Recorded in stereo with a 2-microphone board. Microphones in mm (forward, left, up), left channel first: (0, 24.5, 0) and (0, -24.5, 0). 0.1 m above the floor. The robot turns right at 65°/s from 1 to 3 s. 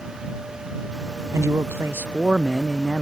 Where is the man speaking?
85° right; by 3.0 s 25° left.